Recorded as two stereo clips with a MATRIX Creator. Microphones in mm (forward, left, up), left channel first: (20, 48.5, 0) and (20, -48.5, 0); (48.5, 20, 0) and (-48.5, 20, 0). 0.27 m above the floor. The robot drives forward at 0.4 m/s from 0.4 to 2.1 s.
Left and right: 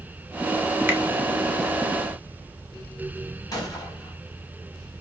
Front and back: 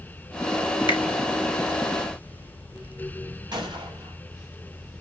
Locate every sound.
0.9 s a finger snap: 25° right, 1.8 m
3.5 s a gunshot: 140° left, 4 m